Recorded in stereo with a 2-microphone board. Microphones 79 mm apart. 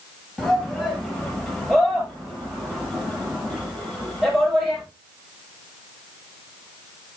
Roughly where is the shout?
Centre.